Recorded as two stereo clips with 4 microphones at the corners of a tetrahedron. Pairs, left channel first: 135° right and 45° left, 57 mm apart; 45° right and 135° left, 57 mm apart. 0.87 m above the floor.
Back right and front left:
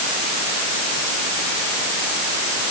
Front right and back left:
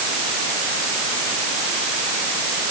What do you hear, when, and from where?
Only background noise.